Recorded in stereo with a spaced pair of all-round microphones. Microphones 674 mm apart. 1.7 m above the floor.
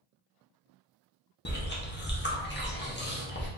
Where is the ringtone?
I don't hear a ringtone.